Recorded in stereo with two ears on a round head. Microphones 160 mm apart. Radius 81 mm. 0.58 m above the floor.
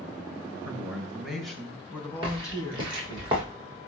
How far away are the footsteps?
About 9 m.